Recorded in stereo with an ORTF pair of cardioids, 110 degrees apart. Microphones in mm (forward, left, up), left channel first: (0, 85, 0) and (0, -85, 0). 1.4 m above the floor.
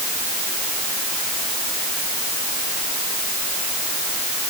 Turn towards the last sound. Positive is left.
No sound to turn to.